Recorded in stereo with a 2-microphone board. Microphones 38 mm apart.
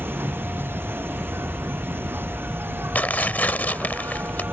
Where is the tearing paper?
50° left (ahead or behind).